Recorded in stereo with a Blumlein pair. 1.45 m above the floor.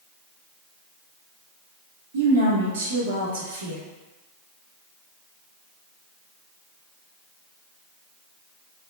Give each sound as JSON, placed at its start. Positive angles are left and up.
{"t": 2.1, "sound": "a woman speaking", "azimuth_deg": -65, "distance_m": 1.7}